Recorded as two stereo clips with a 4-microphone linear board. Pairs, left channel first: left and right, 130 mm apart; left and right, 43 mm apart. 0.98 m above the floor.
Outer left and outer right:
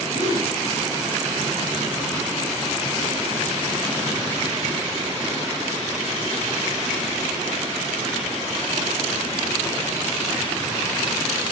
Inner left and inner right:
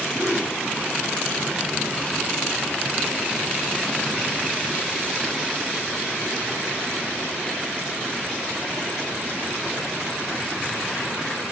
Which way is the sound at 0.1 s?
70° left (ahead or behind).